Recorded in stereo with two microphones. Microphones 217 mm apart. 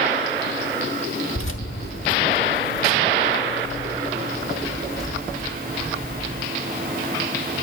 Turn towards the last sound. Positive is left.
turn(degrees=-5)  # may be behind; listen again after turning